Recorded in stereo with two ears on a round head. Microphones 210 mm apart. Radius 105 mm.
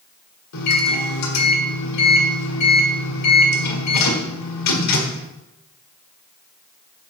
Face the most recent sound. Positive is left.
turn(degrees=80)